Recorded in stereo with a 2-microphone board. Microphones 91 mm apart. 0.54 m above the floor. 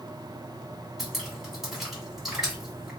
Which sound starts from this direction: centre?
Dripping, at 1.0 s.